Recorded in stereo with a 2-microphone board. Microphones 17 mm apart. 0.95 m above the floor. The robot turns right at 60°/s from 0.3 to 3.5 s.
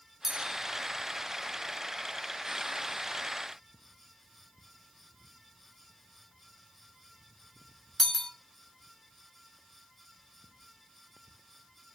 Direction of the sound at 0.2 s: 20° right (ahead or behind).